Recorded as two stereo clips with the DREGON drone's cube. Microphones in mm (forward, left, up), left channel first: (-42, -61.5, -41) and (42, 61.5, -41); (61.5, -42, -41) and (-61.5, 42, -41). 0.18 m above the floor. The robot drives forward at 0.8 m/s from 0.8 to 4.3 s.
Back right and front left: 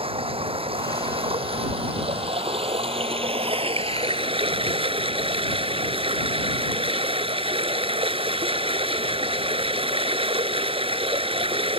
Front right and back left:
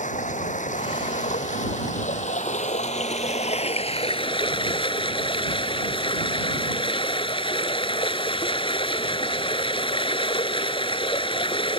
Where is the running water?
5° left; by 11.8 s 15° left.